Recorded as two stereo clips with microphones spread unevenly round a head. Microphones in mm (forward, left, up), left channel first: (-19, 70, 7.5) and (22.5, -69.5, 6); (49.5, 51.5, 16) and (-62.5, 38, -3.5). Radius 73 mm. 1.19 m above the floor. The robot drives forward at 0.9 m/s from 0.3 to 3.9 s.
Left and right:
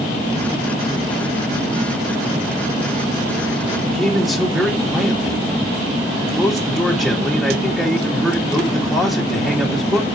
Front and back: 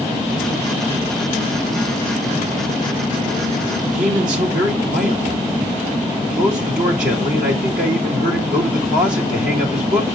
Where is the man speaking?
160° right, 1.7 m.